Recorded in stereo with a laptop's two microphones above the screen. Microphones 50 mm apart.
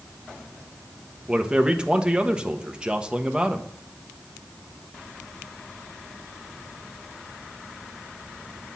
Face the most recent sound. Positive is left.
turn(degrees=-20)  # may be behind; listen again after turning